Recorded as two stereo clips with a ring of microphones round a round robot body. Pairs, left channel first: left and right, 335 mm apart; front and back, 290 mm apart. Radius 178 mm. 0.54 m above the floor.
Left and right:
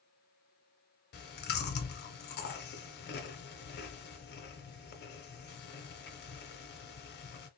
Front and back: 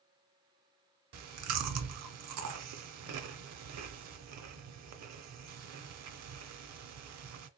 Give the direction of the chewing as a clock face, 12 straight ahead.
7 o'clock.